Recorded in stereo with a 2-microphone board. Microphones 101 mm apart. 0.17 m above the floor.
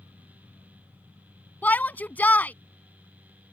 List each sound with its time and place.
1.6 s a shout: 20° left (ahead or behind)